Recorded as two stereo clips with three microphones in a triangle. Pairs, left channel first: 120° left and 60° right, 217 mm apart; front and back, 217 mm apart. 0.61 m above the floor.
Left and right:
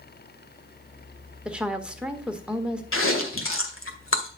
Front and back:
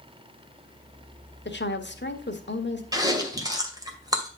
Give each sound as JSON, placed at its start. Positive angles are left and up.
{"t": 1.4, "sound": "a woman speaking", "azimuth_deg": 25, "distance_m": 1.5}
{"t": 2.9, "sound": "chewing", "azimuth_deg": 110, "distance_m": 2.0}